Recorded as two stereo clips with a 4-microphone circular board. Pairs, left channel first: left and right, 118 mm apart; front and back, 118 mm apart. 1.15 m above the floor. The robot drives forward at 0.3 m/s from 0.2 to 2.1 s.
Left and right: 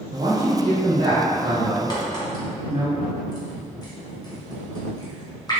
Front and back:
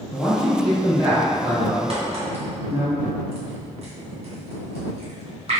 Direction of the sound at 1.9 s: 145° left.